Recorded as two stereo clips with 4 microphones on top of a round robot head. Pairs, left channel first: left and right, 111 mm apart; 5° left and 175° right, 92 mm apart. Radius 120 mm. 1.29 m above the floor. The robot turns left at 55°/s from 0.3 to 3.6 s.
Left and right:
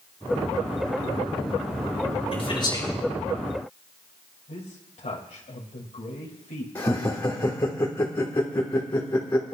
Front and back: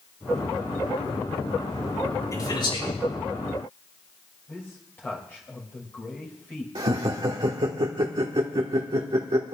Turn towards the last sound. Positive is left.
turn(degrees=155)